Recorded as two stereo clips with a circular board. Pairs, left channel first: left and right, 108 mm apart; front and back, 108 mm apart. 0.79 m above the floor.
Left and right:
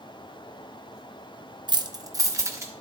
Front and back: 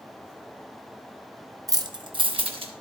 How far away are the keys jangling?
About 0.5 m.